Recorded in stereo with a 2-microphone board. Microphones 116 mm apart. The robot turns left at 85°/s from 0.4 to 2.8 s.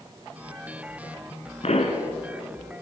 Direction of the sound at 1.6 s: 110° left.